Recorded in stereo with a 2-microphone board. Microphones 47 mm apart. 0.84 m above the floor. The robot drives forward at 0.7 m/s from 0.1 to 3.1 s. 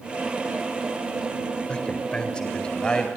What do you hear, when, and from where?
1.7 s a man speaking: 25° left (ahead or behind), 4 m; by 3.1 s 20° left (ahead or behind), 5 m